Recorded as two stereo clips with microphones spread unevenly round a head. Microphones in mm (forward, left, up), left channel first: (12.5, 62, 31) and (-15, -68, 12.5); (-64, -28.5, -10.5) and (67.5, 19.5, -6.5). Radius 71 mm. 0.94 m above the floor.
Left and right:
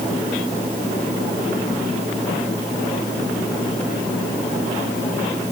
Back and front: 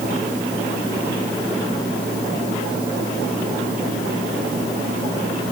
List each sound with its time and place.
Only background noise.